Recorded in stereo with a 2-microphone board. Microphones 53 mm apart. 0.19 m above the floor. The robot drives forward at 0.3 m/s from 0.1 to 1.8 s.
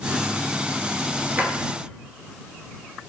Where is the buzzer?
I don't hear a buzzer.